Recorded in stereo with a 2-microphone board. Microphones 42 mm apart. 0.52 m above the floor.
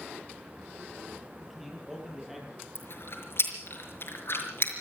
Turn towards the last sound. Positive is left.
turn(degrees=60)  # may be behind; listen again after turning